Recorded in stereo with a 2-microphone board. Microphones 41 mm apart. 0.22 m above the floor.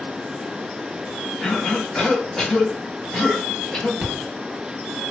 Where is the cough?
10° left (ahead or behind), 1.2 m.